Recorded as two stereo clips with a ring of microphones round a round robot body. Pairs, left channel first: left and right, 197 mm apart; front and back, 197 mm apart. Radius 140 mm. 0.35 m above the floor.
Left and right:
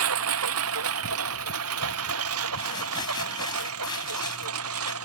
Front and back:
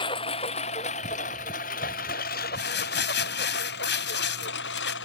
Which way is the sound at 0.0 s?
75° right.